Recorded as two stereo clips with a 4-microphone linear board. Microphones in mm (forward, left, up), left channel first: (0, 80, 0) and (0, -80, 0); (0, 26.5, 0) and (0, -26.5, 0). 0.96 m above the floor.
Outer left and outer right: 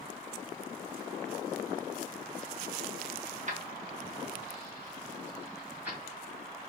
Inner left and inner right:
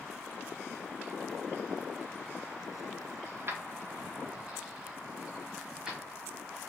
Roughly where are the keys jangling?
Right.